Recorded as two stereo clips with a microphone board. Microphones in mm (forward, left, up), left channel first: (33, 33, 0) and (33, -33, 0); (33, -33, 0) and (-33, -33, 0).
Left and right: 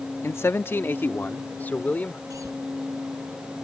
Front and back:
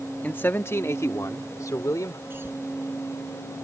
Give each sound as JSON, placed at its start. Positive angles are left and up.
{"t": 0.2, "sound": "a man speaking", "azimuth_deg": 60}
{"t": 2.3, "sound": "a cough", "azimuth_deg": -125}